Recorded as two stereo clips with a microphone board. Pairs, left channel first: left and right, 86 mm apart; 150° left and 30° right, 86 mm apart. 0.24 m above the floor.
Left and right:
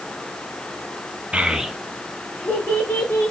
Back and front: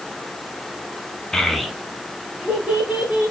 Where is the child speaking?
135° right, 0.5 m; by 3.3 s 30° left, 1.0 m.